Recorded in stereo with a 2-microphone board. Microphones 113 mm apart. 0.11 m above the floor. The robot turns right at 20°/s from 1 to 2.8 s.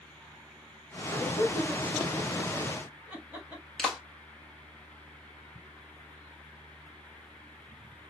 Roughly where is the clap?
Centre.